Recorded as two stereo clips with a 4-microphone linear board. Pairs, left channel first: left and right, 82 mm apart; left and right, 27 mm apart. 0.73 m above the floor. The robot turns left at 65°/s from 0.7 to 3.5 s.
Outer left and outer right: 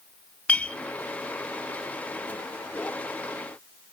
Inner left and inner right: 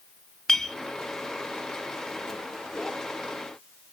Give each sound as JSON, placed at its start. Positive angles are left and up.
{"t": 0.5, "sound": "a clink", "side_deg": 15, "distance_m": 0.6}